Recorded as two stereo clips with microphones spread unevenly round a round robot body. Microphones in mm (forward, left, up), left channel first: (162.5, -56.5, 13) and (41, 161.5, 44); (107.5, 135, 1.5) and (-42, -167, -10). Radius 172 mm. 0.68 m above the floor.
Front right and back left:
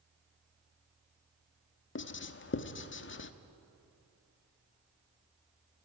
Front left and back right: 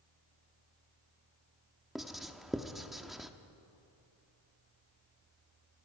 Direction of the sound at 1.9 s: 30° right.